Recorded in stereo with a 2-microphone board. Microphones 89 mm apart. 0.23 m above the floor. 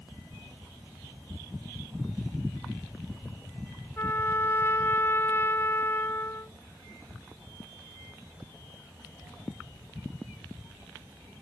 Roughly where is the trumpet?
Left.